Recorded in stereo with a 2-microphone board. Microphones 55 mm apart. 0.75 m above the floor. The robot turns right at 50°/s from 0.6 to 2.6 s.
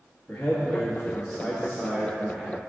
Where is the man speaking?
135° left, 1.1 m; by 2.6 s 125° right, 1.1 m.